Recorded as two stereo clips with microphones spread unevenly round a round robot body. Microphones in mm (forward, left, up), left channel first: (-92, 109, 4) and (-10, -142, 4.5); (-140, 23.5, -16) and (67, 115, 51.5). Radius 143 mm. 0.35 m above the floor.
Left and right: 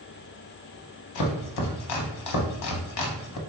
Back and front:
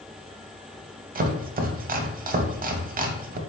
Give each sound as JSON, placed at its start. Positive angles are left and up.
{"t": 1.1, "sound": "chopping", "azimuth_deg": 80, "distance_m": 0.6}